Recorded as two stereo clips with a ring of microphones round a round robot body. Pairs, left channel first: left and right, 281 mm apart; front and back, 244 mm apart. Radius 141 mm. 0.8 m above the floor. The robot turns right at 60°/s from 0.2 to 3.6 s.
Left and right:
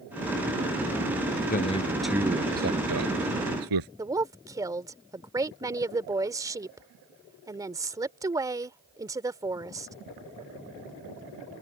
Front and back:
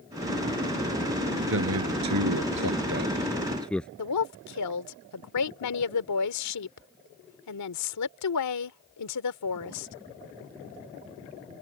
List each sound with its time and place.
1.5 s a man speaking: 145° left; by 3.9 s 85° right
4.0 s a woman speaking: 10° right